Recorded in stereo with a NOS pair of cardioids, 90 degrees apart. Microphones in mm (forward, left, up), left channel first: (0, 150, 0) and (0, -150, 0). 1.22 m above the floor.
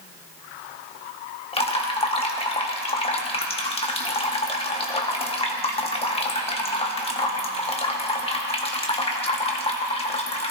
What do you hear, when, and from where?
1.5 s dripping: 20° left, 1.6 m